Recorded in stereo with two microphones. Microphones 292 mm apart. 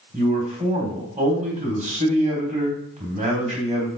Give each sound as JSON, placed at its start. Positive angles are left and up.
{"t": 0.1, "sound": "a man speaking", "side_deg": -25, "distance_m": 1.2}